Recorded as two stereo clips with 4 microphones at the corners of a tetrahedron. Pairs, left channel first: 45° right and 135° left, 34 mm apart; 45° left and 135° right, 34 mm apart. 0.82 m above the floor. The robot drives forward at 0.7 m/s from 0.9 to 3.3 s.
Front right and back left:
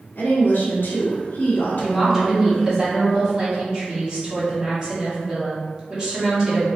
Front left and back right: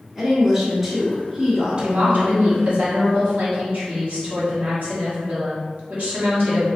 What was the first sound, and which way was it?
A woman speaking, 50° right.